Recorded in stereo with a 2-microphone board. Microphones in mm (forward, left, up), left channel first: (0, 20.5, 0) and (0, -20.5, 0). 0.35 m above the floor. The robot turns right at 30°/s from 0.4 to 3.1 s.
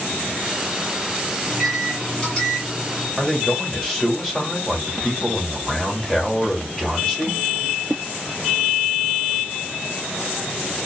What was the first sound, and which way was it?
A microwave, 5° right.